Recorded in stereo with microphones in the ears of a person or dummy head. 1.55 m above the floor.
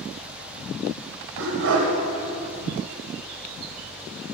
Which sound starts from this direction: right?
A dog barking, at 1.4 s.